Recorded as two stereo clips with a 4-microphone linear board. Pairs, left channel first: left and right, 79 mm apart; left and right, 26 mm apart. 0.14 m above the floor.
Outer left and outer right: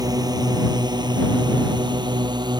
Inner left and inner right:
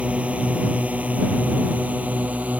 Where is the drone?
55° right (ahead or behind); by 2.6 s 65° right (ahead or behind).